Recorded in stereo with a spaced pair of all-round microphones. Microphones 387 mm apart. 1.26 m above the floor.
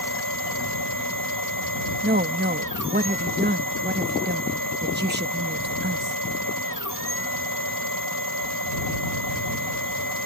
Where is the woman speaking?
25° right (ahead or behind).